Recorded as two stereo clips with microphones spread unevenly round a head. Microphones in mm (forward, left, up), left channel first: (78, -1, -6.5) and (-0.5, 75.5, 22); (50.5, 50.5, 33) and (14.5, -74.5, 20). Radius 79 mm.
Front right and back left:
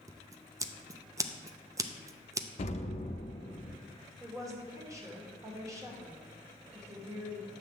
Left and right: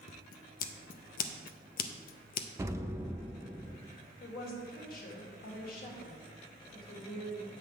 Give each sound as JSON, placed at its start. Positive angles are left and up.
{"t": 0.1, "sound": "scissors", "azimuth_deg": 65, "distance_m": 0.5}
{"t": 2.6, "sound": "an explosion", "azimuth_deg": -35, "distance_m": 0.6}
{"t": 4.2, "sound": "a woman speaking", "azimuth_deg": 70, "distance_m": 1.8}